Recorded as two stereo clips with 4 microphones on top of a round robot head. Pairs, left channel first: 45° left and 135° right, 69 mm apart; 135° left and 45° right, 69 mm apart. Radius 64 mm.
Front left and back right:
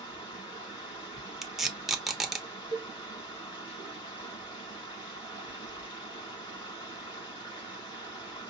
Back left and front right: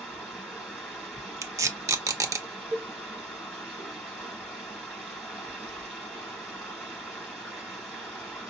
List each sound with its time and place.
0.0 s running water: 55° left, 4 m
1.4 s tape being pulled: 55° right, 1.0 m
2.7 s a cowbell: 35° left, 1.5 m